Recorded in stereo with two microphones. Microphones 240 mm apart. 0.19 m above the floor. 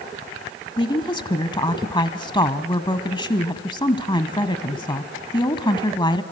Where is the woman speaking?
20° left (ahead or behind), 1.2 m.